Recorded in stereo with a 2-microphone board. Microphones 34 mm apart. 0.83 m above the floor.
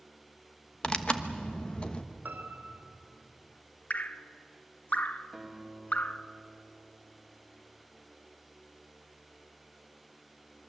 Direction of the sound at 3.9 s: 50° left (ahead or behind).